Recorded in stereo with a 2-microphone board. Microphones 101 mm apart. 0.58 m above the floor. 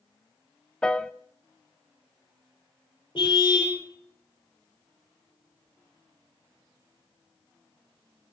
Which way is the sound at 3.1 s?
55° left (ahead or behind).